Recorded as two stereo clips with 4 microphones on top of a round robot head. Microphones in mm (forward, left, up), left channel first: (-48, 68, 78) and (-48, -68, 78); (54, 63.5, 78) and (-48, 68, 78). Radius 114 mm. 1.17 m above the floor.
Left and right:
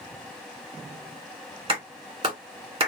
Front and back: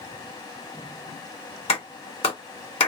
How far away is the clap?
About 1.4 m.